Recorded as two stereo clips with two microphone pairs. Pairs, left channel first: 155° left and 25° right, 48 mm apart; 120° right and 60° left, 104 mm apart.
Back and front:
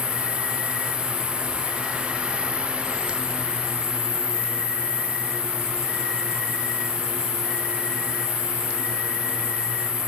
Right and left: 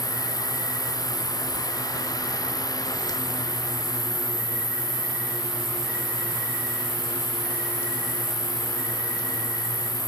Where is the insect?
135° left, 7.5 m.